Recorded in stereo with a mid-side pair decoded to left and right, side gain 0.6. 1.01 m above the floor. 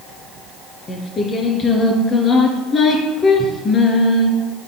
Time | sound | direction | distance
0.9 | singing | 35° left | 2.5 m